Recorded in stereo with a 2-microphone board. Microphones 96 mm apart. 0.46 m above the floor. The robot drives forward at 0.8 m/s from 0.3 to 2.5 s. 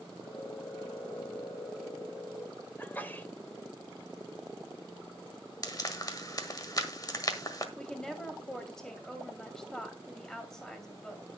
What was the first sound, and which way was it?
A sneeze, 20° left (ahead or behind).